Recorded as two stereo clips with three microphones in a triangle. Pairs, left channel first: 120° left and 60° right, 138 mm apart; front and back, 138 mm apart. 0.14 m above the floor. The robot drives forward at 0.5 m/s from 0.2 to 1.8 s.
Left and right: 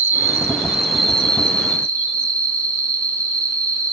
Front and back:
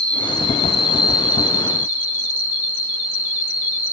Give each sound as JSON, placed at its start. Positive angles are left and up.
{"t": 0.0, "sound": "an insect", "azimuth_deg": -130, "distance_m": 0.8}